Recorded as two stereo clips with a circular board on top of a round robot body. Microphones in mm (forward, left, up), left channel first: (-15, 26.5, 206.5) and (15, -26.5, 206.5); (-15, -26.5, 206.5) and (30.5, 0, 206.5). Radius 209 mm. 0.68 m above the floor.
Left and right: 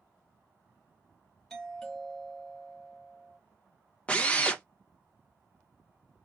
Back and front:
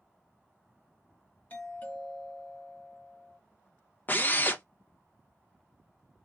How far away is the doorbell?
About 1.8 m.